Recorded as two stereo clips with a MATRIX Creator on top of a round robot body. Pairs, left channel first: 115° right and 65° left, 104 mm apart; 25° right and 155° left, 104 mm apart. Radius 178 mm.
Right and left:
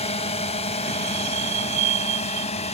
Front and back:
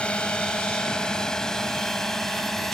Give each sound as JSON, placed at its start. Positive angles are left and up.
{"t": 0.0, "sound": "a drone", "azimuth_deg": -100}